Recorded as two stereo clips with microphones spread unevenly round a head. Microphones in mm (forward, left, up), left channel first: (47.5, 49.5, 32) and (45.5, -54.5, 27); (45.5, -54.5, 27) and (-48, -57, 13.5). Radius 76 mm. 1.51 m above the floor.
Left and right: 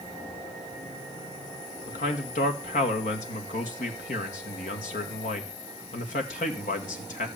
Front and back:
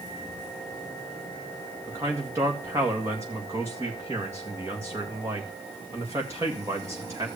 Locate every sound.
1.9 s a man speaking: 110° left, 1.9 m